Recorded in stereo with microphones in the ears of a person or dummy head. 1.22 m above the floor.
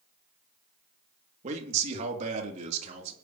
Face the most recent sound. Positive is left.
turn(degrees=-45)  # may be behind; listen again after turning